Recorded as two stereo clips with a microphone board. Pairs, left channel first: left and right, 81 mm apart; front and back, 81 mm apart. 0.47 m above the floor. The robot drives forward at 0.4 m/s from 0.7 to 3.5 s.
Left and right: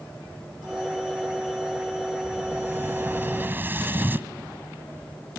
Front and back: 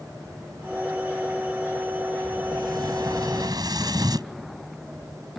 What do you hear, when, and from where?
2.2 s an explosion: 150° right